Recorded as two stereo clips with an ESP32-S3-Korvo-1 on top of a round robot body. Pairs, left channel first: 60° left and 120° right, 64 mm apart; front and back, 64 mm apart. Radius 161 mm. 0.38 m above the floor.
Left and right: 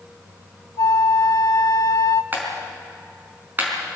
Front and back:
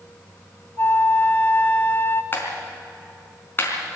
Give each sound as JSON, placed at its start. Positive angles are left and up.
{"t": 0.8, "sound": "a flute", "azimuth_deg": 50, "distance_m": 1.0}
{"t": 2.3, "sound": "a clap", "azimuth_deg": -60, "distance_m": 4.0}